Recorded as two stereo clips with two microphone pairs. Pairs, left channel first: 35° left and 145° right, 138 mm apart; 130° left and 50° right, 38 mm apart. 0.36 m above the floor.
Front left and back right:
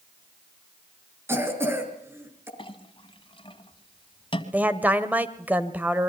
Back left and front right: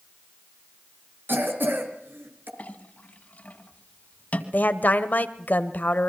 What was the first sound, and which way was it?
A cough, 70° right.